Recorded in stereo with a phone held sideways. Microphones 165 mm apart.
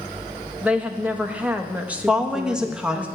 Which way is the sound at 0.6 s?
10° right (ahead or behind).